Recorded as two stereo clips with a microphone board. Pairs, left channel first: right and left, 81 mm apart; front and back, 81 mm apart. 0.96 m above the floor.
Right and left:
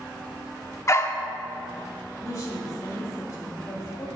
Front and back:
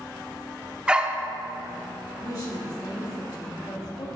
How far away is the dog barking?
About 0.6 m.